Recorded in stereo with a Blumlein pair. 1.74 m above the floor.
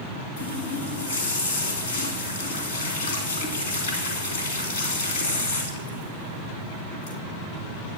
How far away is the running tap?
About 2.5 m.